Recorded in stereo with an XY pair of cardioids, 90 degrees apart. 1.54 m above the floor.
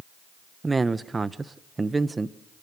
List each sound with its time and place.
0.6 s a man speaking: 25° right, 1.3 m